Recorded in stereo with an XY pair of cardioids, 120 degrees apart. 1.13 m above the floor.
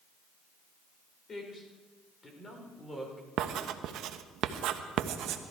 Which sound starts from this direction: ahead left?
A man speaking, at 1.3 s.